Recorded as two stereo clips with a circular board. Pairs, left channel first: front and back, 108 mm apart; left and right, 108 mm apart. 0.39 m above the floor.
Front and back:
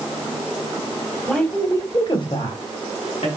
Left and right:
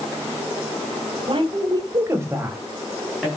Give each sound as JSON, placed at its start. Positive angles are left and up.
{"t": 1.3, "sound": "a woman speaking", "azimuth_deg": -85, "distance_m": 1.8}